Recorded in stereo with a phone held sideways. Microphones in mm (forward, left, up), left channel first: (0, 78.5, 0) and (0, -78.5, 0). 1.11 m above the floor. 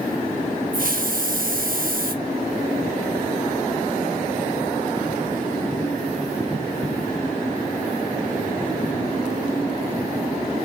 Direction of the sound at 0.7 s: 65° right (ahead or behind).